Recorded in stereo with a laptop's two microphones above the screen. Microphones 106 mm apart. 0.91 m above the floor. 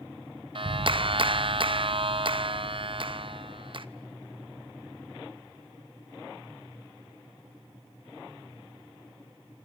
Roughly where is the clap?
Right.